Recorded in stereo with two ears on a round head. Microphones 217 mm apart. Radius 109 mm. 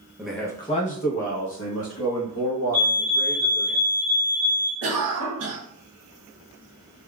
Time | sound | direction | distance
0.2 | a man speaking | 5° right (ahead or behind) | 0.6 m
2.7 | a fire alarm | 30° left (ahead or behind) | 1.5 m
4.8 | a cough | 60° right (ahead or behind) | 1.1 m